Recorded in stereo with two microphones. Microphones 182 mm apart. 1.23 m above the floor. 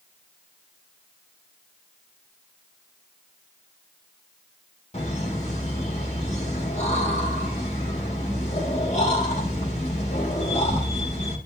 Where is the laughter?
40° left (ahead or behind), 2.5 m.